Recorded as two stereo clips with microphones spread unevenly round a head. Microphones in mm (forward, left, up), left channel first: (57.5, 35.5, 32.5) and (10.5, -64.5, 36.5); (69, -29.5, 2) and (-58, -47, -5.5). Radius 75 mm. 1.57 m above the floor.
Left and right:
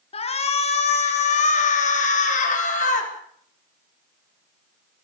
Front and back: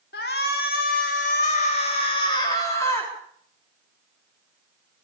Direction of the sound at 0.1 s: 35° left.